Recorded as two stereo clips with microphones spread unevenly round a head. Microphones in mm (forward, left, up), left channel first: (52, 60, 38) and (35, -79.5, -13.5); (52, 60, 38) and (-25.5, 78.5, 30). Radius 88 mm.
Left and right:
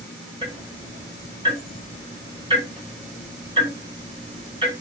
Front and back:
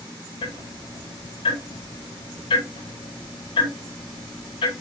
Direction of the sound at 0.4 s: 40° right.